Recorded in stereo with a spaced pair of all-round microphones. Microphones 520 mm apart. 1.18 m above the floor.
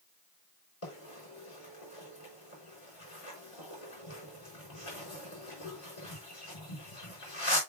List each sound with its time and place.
0.8 s a bird: 80° left, 4.5 m